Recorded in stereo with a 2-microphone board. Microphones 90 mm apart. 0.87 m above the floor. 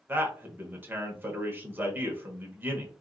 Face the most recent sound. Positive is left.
turn(degrees=-20)  # may be behind; listen again after turning